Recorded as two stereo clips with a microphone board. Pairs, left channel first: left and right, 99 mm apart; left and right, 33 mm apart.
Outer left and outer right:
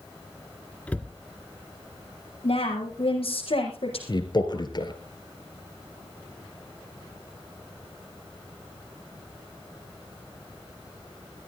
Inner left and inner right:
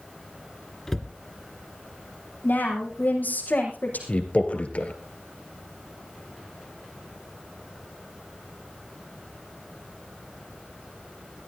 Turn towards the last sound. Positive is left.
turn(degrees=50)  # may be behind; listen again after turning